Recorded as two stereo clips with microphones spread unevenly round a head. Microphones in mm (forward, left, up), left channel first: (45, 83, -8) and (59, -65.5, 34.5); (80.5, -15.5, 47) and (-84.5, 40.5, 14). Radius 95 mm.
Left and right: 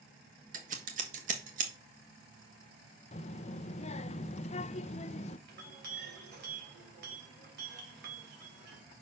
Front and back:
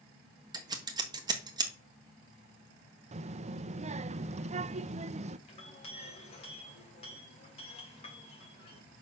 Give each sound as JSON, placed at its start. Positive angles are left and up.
{"t": 0.5, "sound": "scissors", "azimuth_deg": -140, "distance_m": 1.4}
{"t": 3.1, "sound": "a child speaking", "azimuth_deg": 120, "distance_m": 0.6}
{"t": 5.5, "sound": "a clink", "azimuth_deg": -80, "distance_m": 3.0}